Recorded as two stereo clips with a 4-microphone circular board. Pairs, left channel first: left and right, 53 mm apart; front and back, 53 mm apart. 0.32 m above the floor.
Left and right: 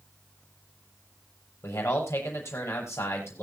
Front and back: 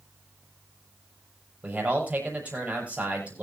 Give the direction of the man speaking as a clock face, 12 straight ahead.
8 o'clock.